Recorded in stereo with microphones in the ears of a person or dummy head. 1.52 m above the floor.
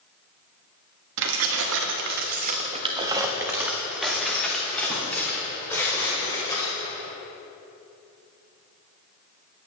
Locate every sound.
1.2 s keys jangling: 65° right (ahead or behind), 1.6 m; by 6.8 s 20° left (ahead or behind), 4.5 m